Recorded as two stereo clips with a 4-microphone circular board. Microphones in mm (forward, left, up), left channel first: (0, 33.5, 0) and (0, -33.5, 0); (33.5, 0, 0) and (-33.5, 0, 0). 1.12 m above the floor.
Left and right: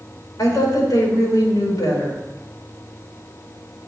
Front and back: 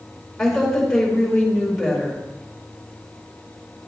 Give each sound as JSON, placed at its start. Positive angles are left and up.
{"t": 0.4, "sound": "a woman speaking", "azimuth_deg": 90, "distance_m": 4.5}